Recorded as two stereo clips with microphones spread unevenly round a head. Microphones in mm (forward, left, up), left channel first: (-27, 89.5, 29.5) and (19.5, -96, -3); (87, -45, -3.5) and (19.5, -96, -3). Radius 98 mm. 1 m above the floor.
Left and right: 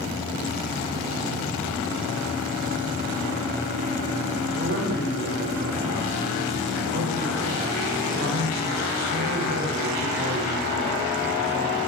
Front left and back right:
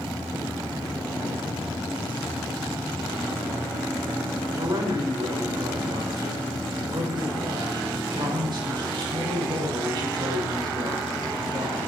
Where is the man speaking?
115° right, 4 m.